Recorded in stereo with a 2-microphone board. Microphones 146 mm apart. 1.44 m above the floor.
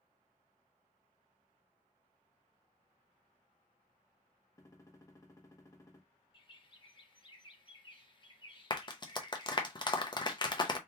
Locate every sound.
4.6 s a gunshot: 20° left (ahead or behind), 0.8 m
6.3 s a bird: 35° left (ahead or behind), 0.7 m
8.7 s a clap: 30° left (ahead or behind), 0.6 m